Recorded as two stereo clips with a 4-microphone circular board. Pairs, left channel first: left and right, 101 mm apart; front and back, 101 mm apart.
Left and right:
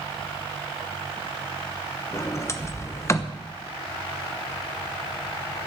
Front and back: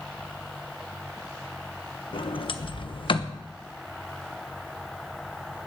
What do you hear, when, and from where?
2.1 s a sliding door: 30° left, 1.0 m